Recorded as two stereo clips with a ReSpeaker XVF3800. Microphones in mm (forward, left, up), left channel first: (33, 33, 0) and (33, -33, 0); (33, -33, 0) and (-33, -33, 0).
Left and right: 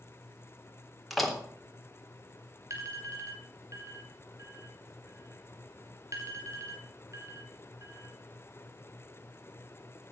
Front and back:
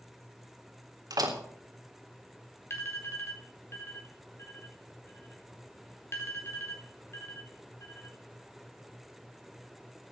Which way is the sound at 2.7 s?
50° right.